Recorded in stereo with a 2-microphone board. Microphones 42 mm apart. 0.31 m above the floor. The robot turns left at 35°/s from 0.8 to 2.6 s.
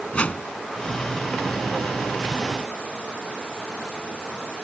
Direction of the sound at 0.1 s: 30° left (ahead or behind).